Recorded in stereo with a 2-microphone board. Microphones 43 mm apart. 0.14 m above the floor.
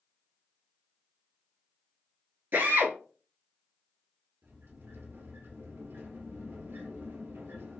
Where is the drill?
50° right (ahead or behind), 1.3 m.